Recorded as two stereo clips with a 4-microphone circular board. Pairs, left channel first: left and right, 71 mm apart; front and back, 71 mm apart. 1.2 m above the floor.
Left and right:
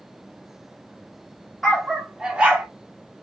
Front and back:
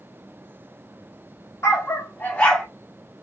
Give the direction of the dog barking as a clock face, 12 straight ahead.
12 o'clock.